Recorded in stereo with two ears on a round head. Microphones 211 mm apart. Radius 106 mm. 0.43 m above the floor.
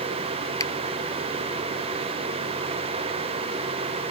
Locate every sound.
0.6 s a finger snap: 15° left (ahead or behind)